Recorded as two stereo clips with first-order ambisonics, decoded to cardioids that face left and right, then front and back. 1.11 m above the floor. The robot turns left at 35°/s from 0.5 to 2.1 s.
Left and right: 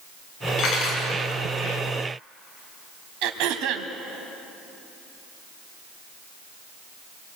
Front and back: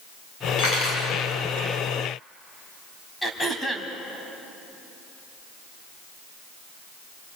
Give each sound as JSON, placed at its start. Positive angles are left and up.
{"t": 0.6, "sound": "cutlery clinking", "azimuth_deg": 50, "distance_m": 6.5}
{"t": 3.2, "sound": "throat clearing", "azimuth_deg": -85, "distance_m": 2.0}